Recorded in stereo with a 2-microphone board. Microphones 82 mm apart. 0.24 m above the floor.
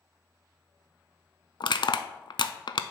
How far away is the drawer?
No drawer in this recording.